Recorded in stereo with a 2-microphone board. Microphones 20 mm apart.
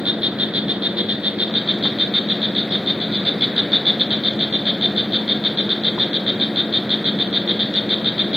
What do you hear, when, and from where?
0.0 s an insect: 60° right (ahead or behind), 1.2 m